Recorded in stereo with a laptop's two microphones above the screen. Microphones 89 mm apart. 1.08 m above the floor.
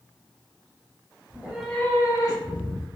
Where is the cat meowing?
20° right (ahead or behind), 0.5 m; by 2.9 s 60° left (ahead or behind), 1.0 m.